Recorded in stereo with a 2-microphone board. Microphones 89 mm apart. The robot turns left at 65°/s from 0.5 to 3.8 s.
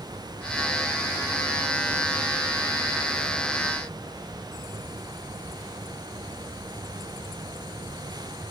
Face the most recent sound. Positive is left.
No sound to turn to.